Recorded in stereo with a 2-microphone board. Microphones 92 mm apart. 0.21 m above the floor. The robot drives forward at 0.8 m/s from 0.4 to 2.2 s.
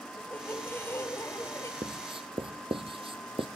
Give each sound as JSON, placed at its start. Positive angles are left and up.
{"t": 0.2, "sound": "a squeak", "side_deg": 25, "distance_m": 4.0}
{"t": 1.8, "sound": "writing", "side_deg": -65, "distance_m": 1.2}